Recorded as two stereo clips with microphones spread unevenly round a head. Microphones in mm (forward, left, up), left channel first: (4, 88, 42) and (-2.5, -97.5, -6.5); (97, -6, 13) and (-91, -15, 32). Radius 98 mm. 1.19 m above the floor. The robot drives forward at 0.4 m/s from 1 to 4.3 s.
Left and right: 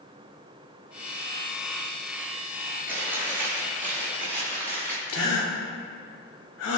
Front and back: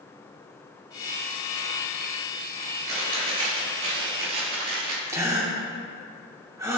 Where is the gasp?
105° left, 2.5 m.